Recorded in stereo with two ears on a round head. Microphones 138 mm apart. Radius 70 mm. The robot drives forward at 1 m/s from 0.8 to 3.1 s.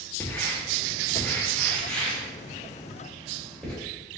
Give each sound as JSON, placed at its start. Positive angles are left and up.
{"t": 0.2, "sound": "writing", "side_deg": 15, "distance_m": 1.4}